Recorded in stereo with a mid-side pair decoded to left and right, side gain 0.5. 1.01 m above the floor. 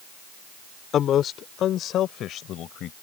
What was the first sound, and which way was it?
A man speaking, 60° left.